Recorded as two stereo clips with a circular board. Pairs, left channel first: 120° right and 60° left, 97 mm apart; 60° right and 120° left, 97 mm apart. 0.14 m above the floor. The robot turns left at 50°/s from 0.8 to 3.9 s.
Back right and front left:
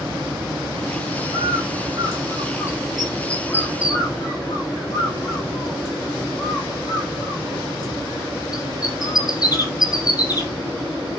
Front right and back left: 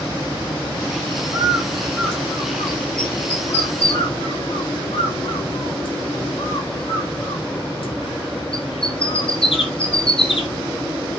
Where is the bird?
55° left, 4 m; by 10.5 s 75° right, 4 m.